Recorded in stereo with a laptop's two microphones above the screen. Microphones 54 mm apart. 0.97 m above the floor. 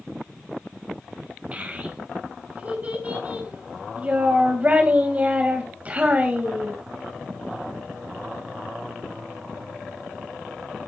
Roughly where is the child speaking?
Right.